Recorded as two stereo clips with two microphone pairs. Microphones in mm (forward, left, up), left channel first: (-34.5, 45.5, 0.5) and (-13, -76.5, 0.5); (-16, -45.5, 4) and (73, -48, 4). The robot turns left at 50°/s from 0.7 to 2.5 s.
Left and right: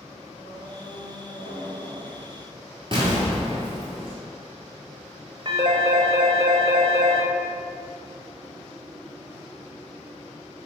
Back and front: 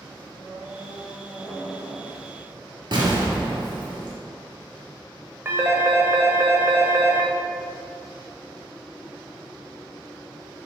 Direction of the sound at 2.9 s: 30° right.